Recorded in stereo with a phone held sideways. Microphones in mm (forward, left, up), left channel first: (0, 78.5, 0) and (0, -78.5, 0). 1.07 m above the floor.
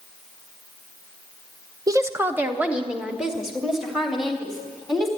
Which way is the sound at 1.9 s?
25° right (ahead or behind).